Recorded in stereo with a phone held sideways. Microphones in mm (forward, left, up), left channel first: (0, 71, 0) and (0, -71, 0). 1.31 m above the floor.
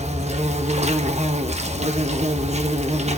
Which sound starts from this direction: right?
An insect, at 0.0 s.